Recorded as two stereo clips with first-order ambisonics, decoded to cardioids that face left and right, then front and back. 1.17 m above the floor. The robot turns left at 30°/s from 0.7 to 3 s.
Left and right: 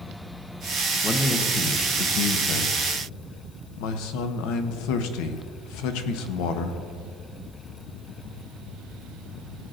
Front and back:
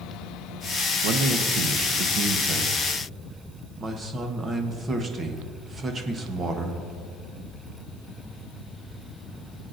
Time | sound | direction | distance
1.0 | a man speaking | 170° left | 1.0 m